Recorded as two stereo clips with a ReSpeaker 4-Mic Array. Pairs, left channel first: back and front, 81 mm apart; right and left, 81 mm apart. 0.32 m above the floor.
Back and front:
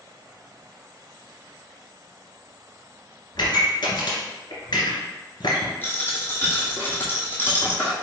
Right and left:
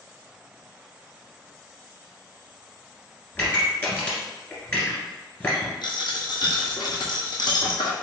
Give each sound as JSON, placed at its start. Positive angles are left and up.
{"t": 3.4, "sound": "a pop", "azimuth_deg": -155, "distance_m": 1.7}
{"t": 5.8, "sound": "a dropped coin", "azimuth_deg": -115, "distance_m": 1.3}